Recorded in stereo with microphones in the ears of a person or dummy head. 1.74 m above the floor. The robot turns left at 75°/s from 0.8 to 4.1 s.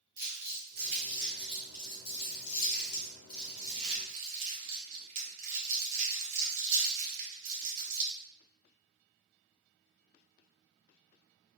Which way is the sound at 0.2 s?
20° right (ahead or behind).